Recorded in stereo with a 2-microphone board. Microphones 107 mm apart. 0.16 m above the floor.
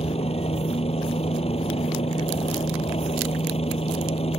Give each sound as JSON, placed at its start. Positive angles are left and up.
{"t": 0.0, "sound": "a helicopter", "side_deg": 70}